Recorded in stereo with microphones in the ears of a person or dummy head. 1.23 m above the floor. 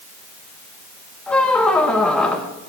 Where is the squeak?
5° left (ahead or behind), 0.8 m.